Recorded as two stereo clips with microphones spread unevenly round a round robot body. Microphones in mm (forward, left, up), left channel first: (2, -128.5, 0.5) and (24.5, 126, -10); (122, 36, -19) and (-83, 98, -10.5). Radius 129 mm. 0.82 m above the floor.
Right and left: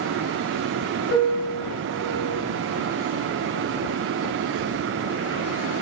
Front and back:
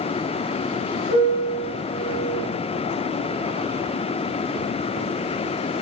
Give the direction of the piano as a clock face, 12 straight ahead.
2 o'clock.